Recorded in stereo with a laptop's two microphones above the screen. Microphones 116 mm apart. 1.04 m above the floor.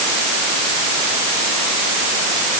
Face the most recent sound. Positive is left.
No sound to turn to.